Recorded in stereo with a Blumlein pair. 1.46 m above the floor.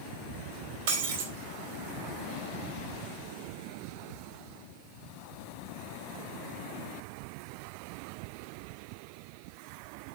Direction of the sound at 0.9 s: 50° right.